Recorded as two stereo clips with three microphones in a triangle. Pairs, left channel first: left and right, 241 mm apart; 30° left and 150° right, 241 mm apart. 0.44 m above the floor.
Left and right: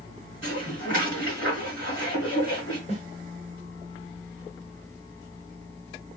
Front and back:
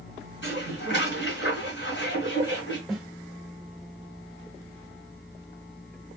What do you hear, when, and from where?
0.4 s dishes clattering: 65° left, 2.5 m
2.9 s a snare drum: 120° left, 1.6 m